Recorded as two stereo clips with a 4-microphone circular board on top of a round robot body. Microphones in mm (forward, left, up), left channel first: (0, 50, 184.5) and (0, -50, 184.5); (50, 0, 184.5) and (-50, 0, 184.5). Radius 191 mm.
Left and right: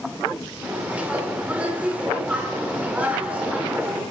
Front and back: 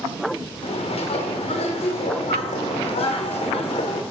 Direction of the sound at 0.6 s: 15° right.